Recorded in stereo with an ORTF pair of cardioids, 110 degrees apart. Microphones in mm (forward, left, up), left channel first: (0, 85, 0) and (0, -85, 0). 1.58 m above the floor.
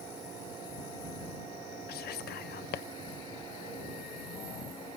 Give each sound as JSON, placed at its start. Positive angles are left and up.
{"t": 1.9, "sound": "whispering", "azimuth_deg": 65}